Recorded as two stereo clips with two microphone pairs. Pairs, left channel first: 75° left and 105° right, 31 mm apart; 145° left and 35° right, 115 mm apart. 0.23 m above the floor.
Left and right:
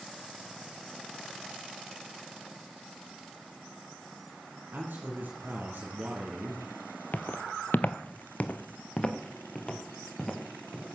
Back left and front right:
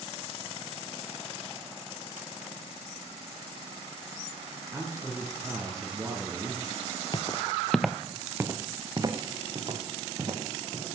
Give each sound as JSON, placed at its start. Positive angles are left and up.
{"t": 4.7, "sound": "a man speaking", "azimuth_deg": -105, "distance_m": 3.0}
{"t": 7.1, "sound": "footsteps", "azimuth_deg": 105, "distance_m": 0.8}